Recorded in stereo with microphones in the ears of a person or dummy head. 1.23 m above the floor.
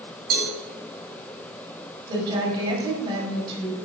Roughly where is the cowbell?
Right.